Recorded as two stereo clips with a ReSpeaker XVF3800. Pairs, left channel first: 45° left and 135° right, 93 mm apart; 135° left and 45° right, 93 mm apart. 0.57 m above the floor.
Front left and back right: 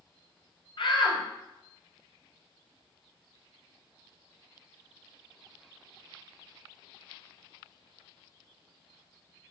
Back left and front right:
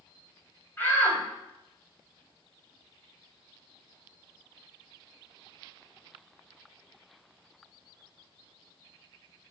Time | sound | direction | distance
0.8 | a shout | 70° left | 3.5 m